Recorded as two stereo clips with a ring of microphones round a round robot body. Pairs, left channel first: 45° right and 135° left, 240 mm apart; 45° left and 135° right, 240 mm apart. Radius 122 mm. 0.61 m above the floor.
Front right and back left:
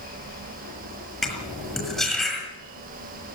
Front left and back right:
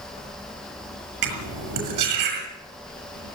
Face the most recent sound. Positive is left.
turn(degrees=-135)